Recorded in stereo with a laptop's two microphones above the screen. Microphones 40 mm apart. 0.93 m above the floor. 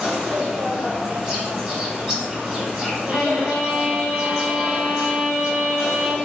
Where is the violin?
50° right (ahead or behind), 1.5 m.